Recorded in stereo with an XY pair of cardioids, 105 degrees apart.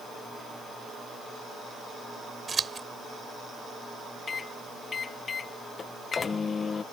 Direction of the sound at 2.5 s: 35° right.